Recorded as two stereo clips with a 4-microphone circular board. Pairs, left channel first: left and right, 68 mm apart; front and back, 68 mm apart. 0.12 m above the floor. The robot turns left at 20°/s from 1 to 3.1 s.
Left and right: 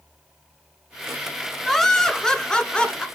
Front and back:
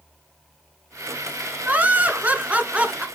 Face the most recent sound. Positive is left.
turn(degrees=140)